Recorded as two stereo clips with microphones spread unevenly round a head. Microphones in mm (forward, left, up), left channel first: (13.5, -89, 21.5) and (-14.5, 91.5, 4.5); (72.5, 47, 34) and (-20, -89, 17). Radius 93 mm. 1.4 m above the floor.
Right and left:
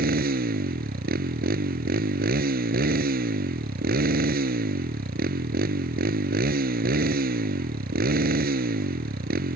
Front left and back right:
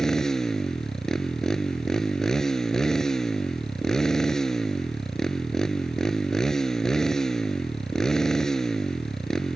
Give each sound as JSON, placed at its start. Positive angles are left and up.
{"t": 0.0, "sound": "a motorcycle", "azimuth_deg": 140}